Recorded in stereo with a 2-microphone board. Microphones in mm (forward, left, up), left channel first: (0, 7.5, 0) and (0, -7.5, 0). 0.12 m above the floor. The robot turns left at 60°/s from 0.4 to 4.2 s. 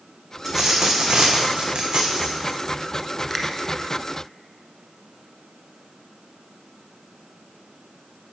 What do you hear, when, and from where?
0.5 s a dropped coin: 5° right, 1.8 m; by 2.6 s 135° right, 1.8 m
3.3 s a finger snap: centre (ahead or behind), 1.1 m; by 3.5 s 5° left (ahead or behind), 1.1 m